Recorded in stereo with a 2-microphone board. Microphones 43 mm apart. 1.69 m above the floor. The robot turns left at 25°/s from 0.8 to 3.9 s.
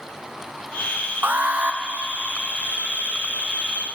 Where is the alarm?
50° right (ahead or behind), 1.2 m; by 1.8 s 35° right (ahead or behind), 1.2 m.